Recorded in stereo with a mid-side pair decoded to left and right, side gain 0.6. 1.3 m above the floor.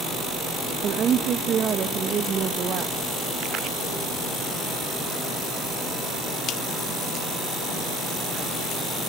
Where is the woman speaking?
45° right, 1.3 m.